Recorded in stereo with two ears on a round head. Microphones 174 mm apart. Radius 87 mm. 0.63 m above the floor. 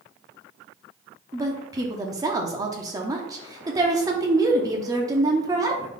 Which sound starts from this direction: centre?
A woman speaking, at 1.3 s.